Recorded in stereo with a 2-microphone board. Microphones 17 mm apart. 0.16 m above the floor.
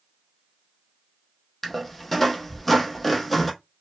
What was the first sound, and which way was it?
A squeak, 5° left (ahead or behind).